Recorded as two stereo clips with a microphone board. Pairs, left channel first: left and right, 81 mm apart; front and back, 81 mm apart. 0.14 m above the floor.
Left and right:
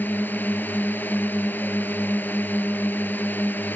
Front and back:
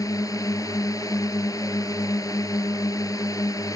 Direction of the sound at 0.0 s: 30° left.